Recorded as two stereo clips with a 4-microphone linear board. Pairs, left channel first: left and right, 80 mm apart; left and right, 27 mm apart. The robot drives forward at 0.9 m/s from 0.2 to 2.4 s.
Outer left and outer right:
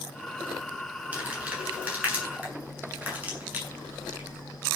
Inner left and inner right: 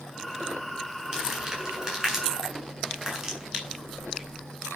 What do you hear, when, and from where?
1.1 s crumpling: 15° right (ahead or behind), 9 m; by 4.4 s 20° right (ahead or behind), 7.5 m